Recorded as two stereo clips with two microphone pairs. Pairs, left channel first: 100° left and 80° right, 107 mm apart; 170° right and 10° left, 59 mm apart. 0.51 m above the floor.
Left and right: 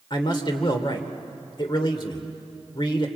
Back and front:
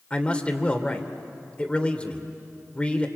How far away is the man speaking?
About 2.0 m.